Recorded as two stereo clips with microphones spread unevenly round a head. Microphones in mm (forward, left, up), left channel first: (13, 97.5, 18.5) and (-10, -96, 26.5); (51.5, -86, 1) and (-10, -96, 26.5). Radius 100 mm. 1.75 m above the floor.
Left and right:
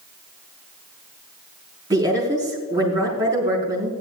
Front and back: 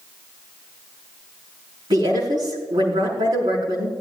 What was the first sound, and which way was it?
A woman speaking, 170° right.